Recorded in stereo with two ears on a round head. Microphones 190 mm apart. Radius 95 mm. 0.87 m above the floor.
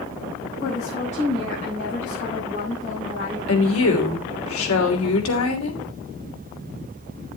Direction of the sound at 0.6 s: 35° left (ahead or behind).